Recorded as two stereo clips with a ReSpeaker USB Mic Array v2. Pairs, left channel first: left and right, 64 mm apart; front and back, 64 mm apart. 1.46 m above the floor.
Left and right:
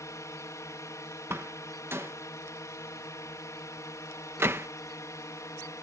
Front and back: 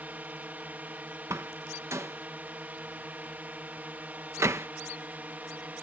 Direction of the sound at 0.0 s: 120° left.